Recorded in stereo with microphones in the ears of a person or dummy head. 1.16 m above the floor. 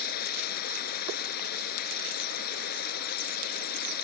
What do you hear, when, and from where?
0.0 s running water: 55° left (ahead or behind)